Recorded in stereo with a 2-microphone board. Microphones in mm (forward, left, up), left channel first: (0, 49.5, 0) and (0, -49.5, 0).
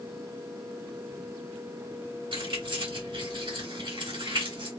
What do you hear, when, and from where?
2.3 s keys jangling: 55° right (ahead or behind), 2 m